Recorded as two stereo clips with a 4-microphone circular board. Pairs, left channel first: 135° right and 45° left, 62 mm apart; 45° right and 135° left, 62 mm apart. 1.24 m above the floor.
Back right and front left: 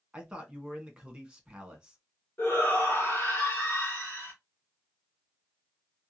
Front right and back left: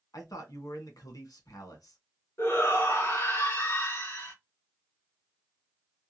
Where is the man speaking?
30° right, 1.5 m.